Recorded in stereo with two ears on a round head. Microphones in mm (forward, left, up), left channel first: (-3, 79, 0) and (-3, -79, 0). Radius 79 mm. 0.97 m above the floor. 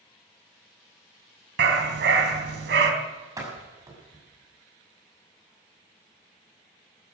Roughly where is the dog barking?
Right.